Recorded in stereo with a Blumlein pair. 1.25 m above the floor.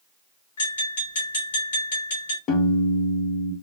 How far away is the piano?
About 1.1 m.